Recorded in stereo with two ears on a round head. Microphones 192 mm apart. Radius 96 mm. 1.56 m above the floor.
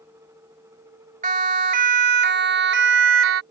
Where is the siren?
35° right (ahead or behind); by 3.4 s 65° right (ahead or behind).